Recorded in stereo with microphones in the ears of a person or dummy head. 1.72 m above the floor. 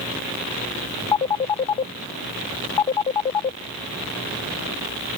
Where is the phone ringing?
15° left (ahead or behind).